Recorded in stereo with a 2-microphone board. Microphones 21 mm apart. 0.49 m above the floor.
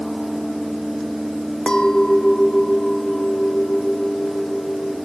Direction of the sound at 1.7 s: 45° left (ahead or behind).